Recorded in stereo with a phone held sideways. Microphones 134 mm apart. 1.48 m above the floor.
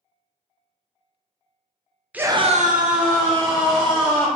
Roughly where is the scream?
Centre.